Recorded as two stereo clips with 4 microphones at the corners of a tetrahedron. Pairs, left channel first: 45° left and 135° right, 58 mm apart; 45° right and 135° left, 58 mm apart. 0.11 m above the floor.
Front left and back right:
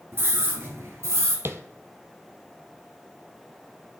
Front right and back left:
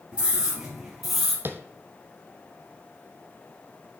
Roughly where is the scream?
Behind.